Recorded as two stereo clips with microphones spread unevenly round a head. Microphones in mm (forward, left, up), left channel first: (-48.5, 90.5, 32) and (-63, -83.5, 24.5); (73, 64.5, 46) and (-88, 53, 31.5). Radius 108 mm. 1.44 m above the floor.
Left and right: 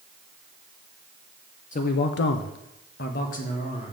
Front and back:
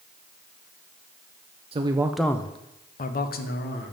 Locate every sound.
1.7 s a man speaking: 130° left, 0.7 m; by 3.9 s 25° left, 1.4 m